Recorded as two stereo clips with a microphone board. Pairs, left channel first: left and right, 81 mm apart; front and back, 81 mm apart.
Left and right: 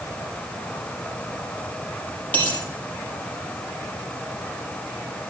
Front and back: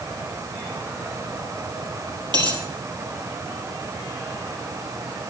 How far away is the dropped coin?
About 4 m.